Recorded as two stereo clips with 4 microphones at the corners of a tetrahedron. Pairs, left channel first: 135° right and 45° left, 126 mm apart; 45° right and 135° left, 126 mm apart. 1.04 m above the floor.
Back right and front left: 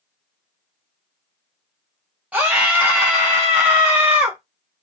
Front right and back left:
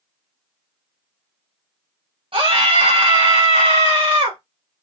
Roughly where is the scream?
Behind left.